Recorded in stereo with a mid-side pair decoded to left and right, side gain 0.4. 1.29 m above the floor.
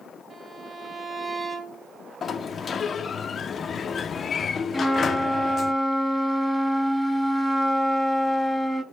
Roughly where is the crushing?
No crushing in this recording.